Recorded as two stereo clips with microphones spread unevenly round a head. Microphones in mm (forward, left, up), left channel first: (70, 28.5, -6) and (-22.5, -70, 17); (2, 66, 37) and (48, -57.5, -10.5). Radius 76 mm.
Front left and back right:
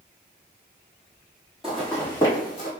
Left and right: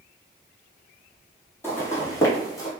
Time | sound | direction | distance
1.6 | footsteps | 150° left | 1.3 m